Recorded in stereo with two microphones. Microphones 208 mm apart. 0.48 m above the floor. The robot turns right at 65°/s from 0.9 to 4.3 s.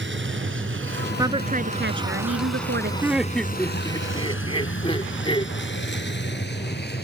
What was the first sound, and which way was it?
A vehicle, 65° right (ahead or behind).